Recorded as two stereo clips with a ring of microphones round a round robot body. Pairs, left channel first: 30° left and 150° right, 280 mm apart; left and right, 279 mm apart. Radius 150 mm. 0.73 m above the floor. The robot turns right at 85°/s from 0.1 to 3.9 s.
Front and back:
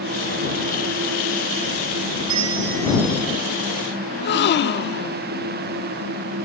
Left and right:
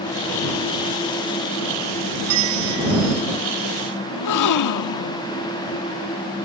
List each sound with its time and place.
2.3 s a bell: 130° right; by 3.2 s 45° right
4.1 s a gasp: 80° left